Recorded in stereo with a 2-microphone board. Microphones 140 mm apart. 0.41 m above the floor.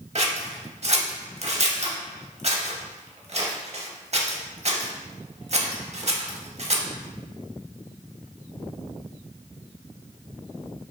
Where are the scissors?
55° right (ahead or behind), 0.6 m.